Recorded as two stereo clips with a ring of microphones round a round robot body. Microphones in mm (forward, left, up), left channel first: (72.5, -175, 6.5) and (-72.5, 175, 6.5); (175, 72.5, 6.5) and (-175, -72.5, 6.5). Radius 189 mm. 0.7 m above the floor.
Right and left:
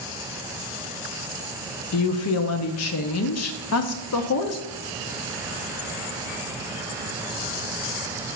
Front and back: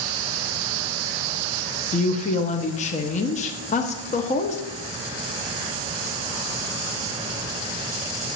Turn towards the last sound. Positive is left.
turn(degrees=-40)